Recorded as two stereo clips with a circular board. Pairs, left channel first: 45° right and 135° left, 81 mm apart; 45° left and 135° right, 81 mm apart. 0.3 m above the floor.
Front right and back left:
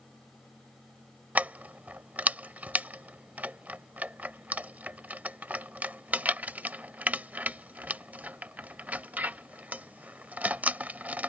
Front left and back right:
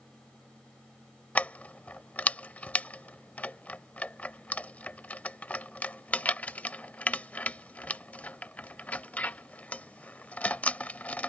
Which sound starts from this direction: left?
Keys jangling, at 1.4 s.